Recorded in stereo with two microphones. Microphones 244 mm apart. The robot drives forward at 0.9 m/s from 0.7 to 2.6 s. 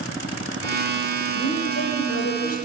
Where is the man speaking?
65° left (ahead or behind), 6 m; by 2.6 s 75° left (ahead or behind), 5.5 m.